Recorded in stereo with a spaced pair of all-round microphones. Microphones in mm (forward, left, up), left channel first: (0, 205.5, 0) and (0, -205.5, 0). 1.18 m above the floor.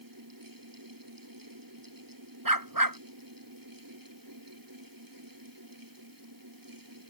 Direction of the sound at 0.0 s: 50° right (ahead or behind).